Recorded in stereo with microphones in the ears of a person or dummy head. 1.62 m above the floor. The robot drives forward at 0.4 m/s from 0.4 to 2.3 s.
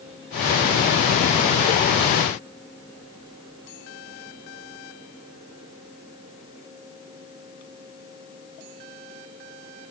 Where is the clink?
I don't hear a clink.